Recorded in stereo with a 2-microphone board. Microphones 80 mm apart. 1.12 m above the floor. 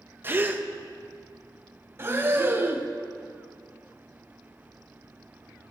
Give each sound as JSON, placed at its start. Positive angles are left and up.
{"t": 0.2, "sound": "a gasp", "side_deg": -25, "distance_m": 0.8}
{"t": 2.0, "sound": "breathing", "side_deg": -30, "distance_m": 1.1}